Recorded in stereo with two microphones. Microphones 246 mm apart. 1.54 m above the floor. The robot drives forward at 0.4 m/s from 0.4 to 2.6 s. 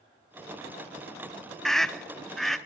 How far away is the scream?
About 0.5 m.